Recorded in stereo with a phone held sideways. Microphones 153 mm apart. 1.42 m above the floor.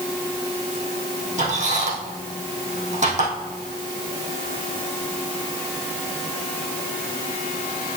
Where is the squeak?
50° right (ahead or behind), 3.5 m.